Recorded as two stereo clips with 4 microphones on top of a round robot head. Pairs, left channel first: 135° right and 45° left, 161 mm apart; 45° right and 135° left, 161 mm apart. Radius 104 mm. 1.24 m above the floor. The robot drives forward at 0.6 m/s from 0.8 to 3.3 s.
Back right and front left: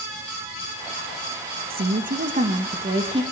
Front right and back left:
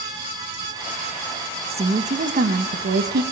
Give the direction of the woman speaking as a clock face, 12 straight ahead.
9 o'clock.